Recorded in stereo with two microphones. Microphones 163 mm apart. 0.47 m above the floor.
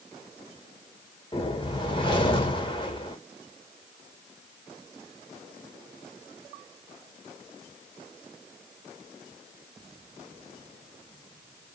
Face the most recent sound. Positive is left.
turn(degrees=30)  # may be behind; listen again after turning